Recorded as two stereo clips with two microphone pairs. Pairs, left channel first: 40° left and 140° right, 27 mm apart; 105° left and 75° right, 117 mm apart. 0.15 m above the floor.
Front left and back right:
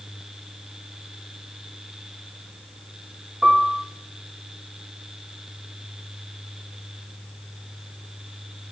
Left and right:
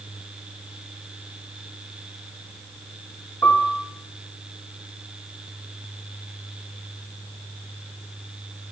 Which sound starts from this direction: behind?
A piano, at 3.4 s.